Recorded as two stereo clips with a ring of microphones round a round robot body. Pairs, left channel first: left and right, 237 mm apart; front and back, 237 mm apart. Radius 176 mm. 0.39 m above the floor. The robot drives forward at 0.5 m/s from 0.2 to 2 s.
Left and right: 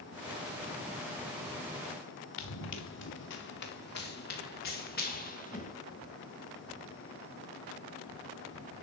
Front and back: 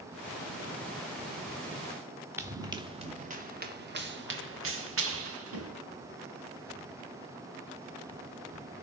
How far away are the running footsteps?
About 2 m.